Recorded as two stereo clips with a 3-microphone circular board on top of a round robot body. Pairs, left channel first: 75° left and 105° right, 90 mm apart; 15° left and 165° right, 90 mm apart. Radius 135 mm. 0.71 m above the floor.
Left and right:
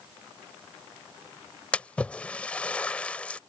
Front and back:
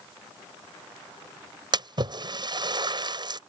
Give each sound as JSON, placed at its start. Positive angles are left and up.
{"t": 1.7, "sound": "a splash", "azimuth_deg": 155}